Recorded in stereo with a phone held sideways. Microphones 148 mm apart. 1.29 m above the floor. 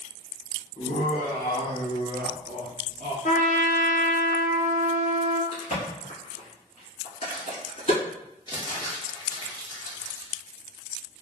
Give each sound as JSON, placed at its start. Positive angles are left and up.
{"t": 0.8, "sound": "laughter", "side_deg": 55, "distance_m": 0.8}
{"t": 3.2, "sound": "a trumpet", "side_deg": 60, "distance_m": 0.6}
{"t": 5.5, "sound": "a crack", "side_deg": 50, "distance_m": 1.9}
{"t": 8.5, "sound": "crumpling", "side_deg": 30, "distance_m": 1.1}